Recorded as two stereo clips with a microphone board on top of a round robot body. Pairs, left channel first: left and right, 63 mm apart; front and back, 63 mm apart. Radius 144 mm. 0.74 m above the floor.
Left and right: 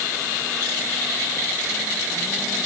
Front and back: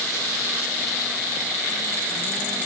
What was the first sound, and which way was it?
Only background noise.